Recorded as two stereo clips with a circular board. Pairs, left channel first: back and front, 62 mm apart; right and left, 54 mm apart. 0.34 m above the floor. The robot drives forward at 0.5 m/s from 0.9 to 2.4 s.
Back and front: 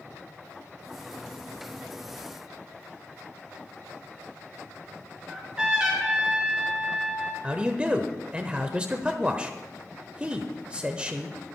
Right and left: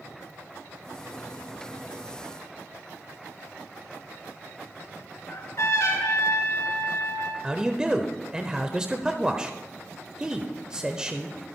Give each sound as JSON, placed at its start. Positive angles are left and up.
{"t": 5.3, "sound": "a trumpet", "azimuth_deg": -75, "distance_m": 3.5}
{"t": 7.4, "sound": "a man speaking", "azimuth_deg": 40, "distance_m": 0.8}